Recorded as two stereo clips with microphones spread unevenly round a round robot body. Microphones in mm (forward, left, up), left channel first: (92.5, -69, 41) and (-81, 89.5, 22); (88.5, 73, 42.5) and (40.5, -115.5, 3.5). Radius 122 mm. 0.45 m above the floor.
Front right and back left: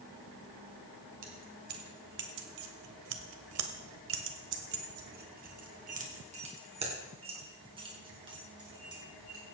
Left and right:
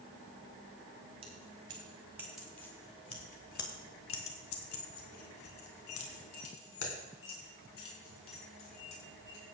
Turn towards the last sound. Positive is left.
turn(degrees=65)